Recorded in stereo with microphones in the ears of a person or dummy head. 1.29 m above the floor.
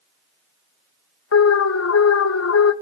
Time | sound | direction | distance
1.3 | an alarm | 75° left (ahead or behind) | 1.0 m